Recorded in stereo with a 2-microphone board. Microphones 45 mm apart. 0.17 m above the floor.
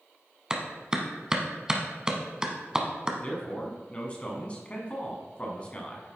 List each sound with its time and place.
0.5 s a clap: 15° right (ahead or behind), 0.8 m
3.2 s a man speaking: 25° left (ahead or behind), 1.2 m